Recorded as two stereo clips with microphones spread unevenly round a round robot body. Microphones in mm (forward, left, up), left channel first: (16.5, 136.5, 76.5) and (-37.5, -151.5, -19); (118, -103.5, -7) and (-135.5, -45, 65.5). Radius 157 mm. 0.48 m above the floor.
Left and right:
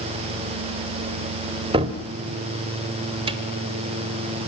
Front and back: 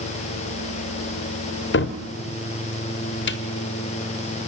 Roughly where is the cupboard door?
Ahead right.